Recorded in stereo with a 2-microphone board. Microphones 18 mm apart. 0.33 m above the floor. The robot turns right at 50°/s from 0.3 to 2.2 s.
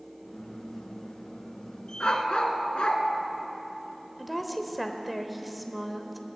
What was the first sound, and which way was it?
A dog barking, 60° left (ahead or behind).